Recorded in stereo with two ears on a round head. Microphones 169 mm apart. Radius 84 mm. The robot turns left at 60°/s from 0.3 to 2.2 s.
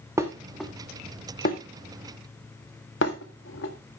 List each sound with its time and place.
0.2 s dishes clattering: 15° right (ahead or behind), 1.5 m; by 3.7 s 70° left (ahead or behind), 1.5 m